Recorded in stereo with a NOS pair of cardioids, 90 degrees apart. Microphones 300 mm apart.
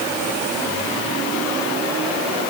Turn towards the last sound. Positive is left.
No sound to turn to.